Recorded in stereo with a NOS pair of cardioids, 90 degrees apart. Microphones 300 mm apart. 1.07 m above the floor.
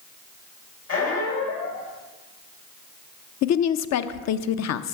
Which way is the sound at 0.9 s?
60° left.